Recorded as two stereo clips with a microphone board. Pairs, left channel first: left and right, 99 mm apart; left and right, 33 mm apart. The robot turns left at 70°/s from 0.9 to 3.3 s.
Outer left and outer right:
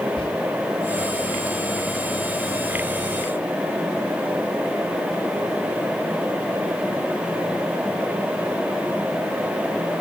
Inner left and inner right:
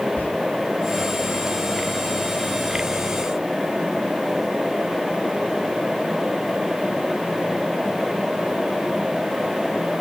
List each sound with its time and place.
0.2 s whispering: 55° left (ahead or behind), 2.5 m